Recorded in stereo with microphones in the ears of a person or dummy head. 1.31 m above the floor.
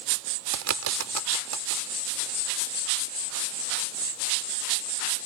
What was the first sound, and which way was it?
A bird, 85° right.